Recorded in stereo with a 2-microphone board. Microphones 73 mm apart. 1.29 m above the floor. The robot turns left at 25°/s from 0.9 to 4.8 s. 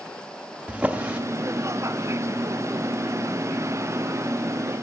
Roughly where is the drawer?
Centre.